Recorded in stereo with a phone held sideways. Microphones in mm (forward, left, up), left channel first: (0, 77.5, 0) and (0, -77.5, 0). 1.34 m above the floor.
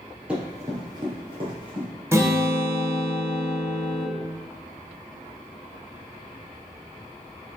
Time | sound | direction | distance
0.3 | running footsteps | 5° right (ahead or behind) | 1.5 m
2.1 | a guitar | 15° right (ahead or behind) | 1.0 m